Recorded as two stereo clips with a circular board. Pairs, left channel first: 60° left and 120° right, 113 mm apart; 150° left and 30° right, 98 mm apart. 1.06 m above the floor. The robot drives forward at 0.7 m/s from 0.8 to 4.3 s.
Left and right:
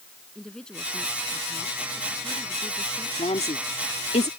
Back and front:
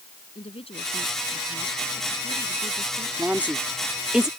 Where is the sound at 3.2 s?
40° left; by 4.3 s 55° left.